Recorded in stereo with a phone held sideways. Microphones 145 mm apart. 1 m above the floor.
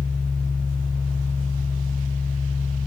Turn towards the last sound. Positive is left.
turn(degrees=40)  # may be behind; listen again after turning